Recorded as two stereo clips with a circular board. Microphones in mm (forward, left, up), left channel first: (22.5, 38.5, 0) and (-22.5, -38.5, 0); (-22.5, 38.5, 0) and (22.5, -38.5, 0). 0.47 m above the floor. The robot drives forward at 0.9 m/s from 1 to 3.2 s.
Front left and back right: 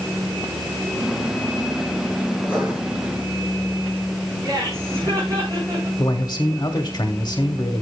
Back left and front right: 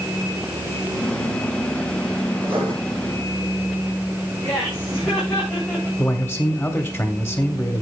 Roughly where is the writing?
Ahead right.